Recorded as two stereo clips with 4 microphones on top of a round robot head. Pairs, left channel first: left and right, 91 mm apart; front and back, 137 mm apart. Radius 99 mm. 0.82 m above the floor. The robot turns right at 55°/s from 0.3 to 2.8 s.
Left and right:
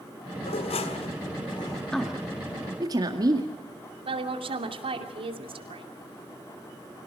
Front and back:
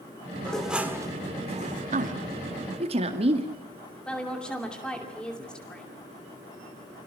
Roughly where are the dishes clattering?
Left.